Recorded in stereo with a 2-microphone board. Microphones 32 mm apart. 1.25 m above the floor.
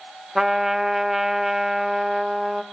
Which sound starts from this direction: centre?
A trumpet, at 0.3 s.